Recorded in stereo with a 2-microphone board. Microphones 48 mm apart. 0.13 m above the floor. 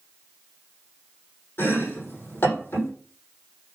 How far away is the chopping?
About 6.5 m.